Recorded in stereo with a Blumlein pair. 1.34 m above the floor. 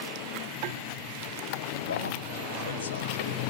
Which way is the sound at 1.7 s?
70° left.